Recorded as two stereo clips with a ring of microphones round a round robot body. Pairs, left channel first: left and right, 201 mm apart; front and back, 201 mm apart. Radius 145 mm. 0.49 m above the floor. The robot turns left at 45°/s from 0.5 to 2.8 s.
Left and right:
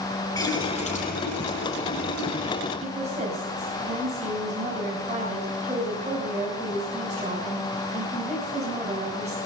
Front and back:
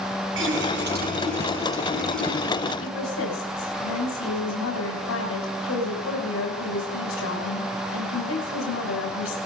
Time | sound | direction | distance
0.4 | a running tap | 165° left | 6.5 m
2.8 | a woman speaking | 15° right | 3 m